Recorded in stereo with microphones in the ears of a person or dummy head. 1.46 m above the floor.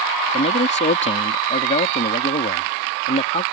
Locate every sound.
0.3 s a man speaking: 35° left (ahead or behind)